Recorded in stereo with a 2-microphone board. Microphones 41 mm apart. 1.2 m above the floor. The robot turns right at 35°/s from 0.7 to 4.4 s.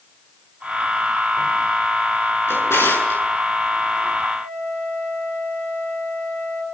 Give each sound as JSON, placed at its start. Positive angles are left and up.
{"t": 2.5, "sound": "a drawer", "side_deg": 65, "distance_m": 9.0}
{"t": 4.4, "sound": "a flute", "side_deg": 60, "distance_m": 7.5}